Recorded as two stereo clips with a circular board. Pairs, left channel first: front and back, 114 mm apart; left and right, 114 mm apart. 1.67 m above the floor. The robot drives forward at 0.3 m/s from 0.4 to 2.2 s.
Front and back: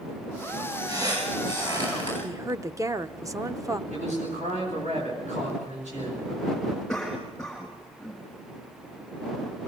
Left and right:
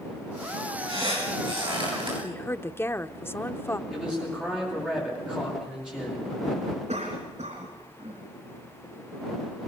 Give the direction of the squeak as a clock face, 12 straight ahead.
4 o'clock.